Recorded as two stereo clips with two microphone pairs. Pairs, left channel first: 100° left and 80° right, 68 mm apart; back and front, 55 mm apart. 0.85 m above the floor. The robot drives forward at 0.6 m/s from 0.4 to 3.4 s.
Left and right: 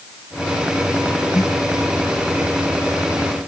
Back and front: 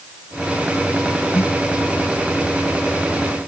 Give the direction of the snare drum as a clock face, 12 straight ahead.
8 o'clock.